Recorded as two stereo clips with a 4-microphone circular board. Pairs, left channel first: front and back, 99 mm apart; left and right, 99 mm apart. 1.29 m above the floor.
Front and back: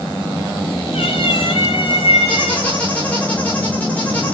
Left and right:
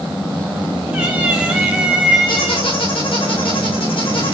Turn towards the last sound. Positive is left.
turn(degrees=75)